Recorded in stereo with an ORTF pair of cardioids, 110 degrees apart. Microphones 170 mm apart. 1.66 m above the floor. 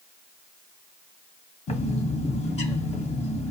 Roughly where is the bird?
Ahead left.